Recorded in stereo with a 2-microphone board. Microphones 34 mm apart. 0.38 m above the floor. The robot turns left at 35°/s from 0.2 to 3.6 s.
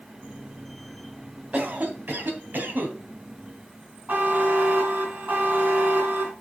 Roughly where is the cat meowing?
No cat meowing in this recording.